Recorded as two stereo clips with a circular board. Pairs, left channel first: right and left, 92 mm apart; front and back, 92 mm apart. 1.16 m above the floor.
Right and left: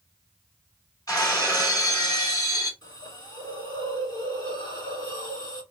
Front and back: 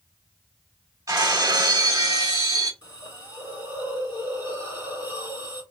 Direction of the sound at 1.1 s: 135° right.